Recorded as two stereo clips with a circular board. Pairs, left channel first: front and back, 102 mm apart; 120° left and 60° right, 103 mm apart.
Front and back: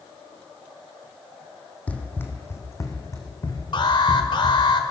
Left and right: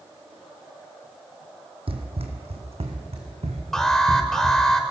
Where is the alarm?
35° left, 2.0 m.